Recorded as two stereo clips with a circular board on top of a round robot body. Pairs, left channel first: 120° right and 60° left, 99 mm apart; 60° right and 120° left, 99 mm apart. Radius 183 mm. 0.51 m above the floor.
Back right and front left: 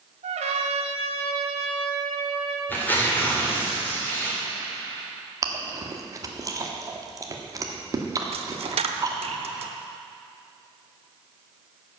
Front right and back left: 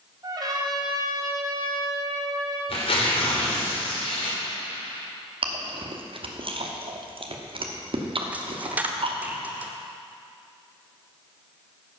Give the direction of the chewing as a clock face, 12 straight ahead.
8 o'clock.